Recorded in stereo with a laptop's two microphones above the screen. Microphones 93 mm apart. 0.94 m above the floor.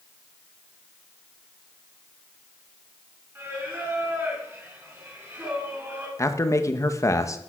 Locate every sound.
3.4 s singing: 25° right (ahead or behind), 4.5 m
6.2 s a man speaking: 35° left (ahead or behind), 0.9 m